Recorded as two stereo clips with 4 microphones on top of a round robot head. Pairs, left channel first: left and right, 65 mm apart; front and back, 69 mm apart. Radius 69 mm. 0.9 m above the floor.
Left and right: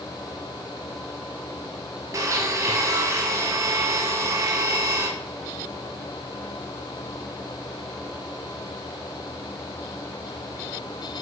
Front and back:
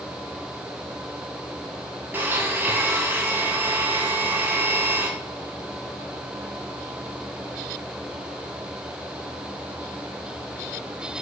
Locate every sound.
2.1 s a blender: 120° right, 1.0 m